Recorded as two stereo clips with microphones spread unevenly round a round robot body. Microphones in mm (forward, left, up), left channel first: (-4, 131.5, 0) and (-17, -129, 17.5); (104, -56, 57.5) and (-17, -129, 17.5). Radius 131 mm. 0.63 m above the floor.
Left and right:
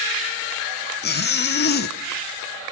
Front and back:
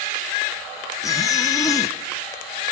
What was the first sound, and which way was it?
A zipper, 110° left.